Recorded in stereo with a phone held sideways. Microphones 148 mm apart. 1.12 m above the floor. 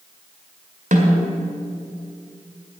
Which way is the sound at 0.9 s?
60° right (ahead or behind).